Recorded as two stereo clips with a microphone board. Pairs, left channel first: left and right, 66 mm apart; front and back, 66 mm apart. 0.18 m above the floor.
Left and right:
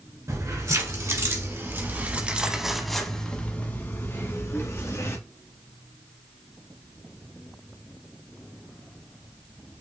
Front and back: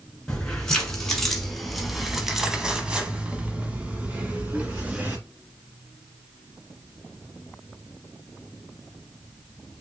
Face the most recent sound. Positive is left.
turn(degrees=120)